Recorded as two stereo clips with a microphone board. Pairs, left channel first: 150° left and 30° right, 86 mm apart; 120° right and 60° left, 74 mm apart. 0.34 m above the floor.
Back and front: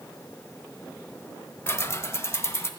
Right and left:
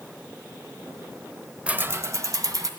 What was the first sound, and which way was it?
Keys jangling, 120° left.